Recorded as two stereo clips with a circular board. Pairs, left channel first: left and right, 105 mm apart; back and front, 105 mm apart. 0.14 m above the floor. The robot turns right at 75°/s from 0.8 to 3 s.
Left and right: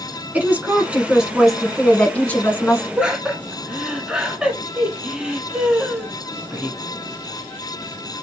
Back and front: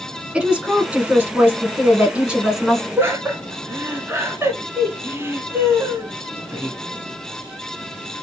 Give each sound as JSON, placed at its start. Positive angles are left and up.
{"t": 0.3, "sound": "a woman speaking", "azimuth_deg": -55, "distance_m": 1.1}
{"t": 3.0, "sound": "laughter", "azimuth_deg": -25, "distance_m": 1.1}